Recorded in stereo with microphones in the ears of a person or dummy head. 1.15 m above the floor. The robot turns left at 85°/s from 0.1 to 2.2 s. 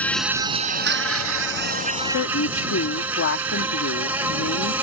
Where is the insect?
10° left; by 4.8 s 170° right.